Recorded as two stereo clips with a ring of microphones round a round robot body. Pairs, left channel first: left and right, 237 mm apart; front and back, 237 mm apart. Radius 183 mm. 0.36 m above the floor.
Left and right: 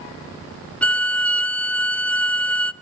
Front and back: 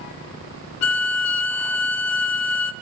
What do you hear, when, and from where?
0.8 s a violin: 5° left, 0.7 m